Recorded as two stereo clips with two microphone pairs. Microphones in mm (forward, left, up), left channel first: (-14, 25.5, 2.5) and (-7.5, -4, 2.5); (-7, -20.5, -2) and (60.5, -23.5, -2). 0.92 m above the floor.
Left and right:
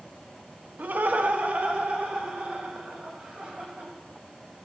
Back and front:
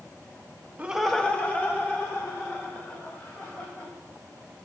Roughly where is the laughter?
Ahead right.